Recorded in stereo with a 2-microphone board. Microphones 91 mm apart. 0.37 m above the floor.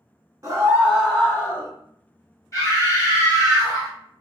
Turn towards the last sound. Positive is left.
turn(degrees=35)  # may be behind; listen again after turning